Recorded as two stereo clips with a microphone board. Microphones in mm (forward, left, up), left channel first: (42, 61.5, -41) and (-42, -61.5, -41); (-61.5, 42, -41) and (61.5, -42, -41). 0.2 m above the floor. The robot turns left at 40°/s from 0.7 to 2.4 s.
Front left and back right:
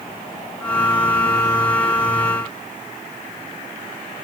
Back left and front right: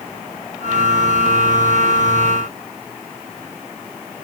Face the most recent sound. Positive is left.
No sound to turn to.